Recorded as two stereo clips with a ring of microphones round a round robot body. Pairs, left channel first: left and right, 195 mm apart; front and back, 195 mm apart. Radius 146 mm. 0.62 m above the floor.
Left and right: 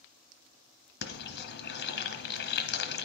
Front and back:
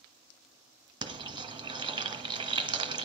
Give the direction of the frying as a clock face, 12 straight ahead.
8 o'clock.